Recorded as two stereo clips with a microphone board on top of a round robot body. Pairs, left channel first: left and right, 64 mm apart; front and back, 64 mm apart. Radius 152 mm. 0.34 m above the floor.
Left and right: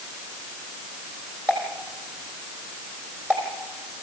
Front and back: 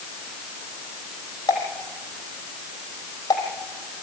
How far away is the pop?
About 4.5 m.